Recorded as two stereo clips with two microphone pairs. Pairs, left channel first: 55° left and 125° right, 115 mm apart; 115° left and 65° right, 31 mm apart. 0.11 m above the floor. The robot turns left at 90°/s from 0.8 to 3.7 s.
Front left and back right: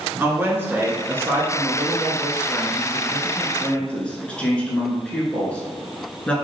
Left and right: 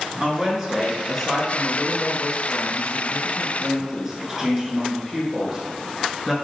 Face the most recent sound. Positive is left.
turn(degrees=-5)